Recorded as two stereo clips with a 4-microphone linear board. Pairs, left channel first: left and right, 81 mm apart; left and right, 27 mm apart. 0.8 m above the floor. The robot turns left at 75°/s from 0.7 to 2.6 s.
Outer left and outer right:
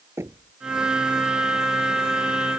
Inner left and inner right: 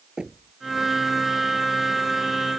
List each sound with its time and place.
0.2 s knocking: 30° right (ahead or behind)